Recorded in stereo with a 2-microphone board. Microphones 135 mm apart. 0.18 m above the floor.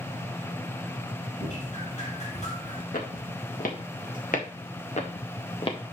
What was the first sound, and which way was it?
Dripping, 65° left (ahead or behind).